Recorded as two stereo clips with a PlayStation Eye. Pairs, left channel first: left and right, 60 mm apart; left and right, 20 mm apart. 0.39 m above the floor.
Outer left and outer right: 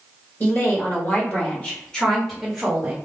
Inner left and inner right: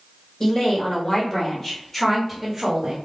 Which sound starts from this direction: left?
A woman speaking, at 0.4 s.